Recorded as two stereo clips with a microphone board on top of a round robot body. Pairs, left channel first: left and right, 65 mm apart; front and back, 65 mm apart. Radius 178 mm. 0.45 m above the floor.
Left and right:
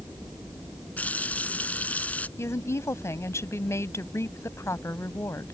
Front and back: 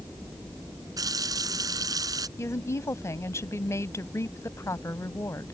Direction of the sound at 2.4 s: 45° left.